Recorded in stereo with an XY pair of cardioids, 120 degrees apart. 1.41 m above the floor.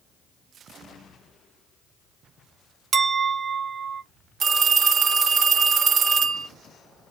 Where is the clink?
40° right, 0.9 m.